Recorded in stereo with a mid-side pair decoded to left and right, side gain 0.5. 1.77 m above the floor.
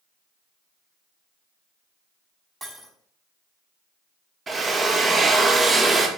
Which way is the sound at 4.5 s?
30° right.